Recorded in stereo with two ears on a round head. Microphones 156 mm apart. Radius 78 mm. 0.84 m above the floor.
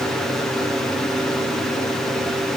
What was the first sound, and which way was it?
Only background noise.